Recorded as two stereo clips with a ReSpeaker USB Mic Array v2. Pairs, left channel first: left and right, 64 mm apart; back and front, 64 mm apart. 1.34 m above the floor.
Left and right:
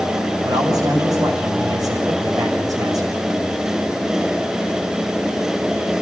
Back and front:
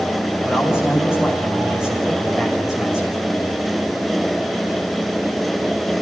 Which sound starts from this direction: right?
A man speaking, at 0.4 s.